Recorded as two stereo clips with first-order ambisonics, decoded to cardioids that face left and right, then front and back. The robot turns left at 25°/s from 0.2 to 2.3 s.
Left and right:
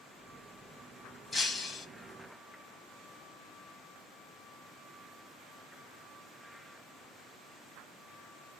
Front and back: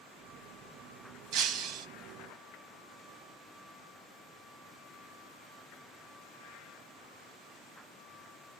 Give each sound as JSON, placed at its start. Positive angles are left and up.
{"t": 1.3, "sound": "breaking glass", "azimuth_deg": 170, "distance_m": 0.7}